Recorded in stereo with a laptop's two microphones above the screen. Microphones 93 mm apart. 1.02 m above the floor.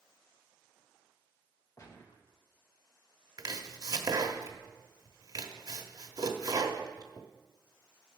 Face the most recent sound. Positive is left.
turn(degrees=-45)  # may be behind; listen again after turning